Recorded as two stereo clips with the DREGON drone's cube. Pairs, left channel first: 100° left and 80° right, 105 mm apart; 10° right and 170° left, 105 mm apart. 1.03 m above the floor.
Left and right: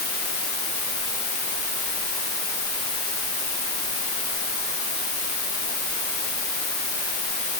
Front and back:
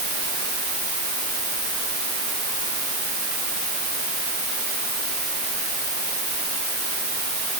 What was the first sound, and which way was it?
Only background noise.